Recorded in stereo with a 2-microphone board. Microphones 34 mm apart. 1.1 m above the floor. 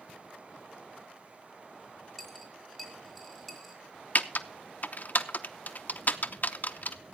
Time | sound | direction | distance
2.2 | a dropped coin | centre (ahead or behind) | 2.5 m
4.2 | typing on a keyboard | 50° left (ahead or behind) | 0.7 m